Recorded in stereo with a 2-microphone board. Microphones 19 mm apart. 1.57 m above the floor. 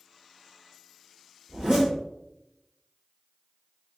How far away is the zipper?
About 1.5 m.